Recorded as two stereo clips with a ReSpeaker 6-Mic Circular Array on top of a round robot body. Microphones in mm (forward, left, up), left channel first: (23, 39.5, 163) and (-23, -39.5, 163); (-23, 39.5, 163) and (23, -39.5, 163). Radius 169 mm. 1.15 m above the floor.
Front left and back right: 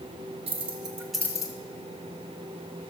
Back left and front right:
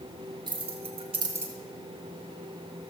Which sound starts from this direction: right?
Keys jangling, at 0.5 s.